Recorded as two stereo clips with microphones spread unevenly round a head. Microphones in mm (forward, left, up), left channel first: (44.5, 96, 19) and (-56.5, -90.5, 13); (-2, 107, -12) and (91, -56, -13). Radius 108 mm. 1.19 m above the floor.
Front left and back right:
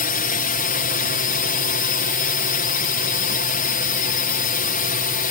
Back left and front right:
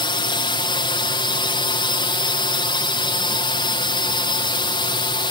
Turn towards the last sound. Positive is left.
turn(degrees=70)